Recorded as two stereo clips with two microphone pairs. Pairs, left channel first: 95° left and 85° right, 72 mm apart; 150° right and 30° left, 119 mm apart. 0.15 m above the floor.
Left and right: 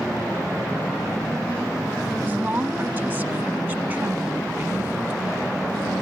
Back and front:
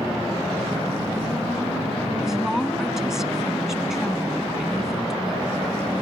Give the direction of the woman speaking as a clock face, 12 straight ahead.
2 o'clock.